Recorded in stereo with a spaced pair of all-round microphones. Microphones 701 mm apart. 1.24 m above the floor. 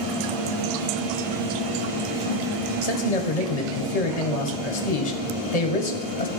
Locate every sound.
2.8 s a man speaking: 60° left (ahead or behind), 1.1 m